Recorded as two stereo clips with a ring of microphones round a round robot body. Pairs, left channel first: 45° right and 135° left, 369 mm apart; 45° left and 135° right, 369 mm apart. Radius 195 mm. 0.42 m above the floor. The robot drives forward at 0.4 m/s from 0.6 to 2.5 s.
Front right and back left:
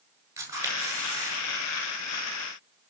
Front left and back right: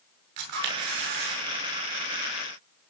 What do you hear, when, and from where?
0.4 s a camera shutter: 145° right, 7.5 m